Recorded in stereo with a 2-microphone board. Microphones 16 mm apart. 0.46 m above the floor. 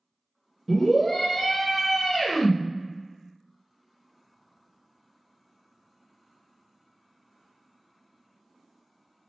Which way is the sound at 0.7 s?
15° left (ahead or behind).